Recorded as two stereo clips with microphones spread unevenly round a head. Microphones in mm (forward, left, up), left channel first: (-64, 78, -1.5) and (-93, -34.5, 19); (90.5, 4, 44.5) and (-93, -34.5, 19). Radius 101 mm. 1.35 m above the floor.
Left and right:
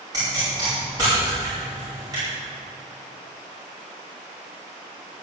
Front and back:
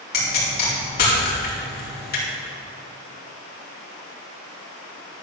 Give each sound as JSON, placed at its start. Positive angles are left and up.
{"t": 0.1, "sound": "a pop", "azimuth_deg": -30, "distance_m": 4.5}